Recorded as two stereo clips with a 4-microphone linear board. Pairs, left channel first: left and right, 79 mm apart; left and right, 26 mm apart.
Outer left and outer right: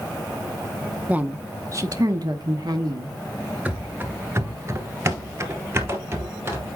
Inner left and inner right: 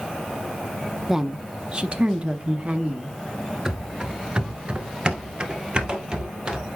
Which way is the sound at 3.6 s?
20° right (ahead or behind).